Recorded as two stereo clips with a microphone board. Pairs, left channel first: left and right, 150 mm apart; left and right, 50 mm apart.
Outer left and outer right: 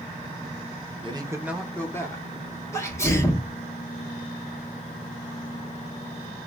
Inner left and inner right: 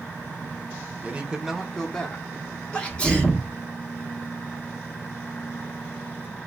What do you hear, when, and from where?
1.0 s a man speaking: 35° right (ahead or behind), 0.7 m; by 2.3 s 25° left (ahead or behind), 1.0 m
2.7 s a sneeze: 15° left (ahead or behind), 1.0 m